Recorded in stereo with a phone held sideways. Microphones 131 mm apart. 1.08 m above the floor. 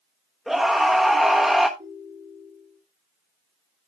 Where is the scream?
Centre (ahead or behind), 1.1 m.